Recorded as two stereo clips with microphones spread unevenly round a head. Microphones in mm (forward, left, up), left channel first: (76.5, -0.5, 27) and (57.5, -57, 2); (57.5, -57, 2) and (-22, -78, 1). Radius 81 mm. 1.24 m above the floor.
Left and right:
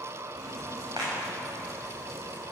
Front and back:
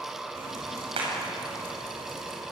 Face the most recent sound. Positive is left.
turn(degrees=-175)